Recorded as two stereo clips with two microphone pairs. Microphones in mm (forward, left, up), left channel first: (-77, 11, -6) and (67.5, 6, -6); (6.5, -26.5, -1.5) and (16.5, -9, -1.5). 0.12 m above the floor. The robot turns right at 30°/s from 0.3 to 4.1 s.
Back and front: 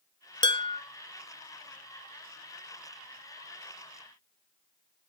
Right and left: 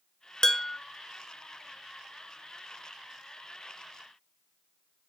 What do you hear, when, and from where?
0.4 s dishes clattering: 160° right, 1.0 m; by 0.8 s 150° right, 1.0 m